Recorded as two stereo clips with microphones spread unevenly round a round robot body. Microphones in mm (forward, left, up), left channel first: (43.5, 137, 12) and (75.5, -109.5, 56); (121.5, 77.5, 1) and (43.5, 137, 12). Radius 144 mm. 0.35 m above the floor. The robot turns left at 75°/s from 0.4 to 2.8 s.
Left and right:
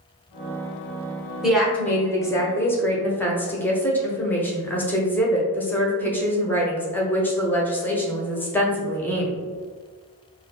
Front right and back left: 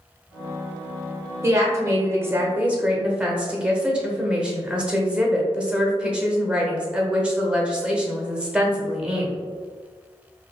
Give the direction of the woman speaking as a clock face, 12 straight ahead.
6 o'clock.